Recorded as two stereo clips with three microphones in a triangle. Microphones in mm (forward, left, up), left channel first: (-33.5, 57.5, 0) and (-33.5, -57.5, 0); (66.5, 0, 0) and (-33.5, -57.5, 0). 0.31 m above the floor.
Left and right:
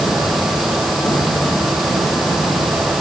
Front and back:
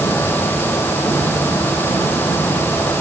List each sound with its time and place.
Only background noise.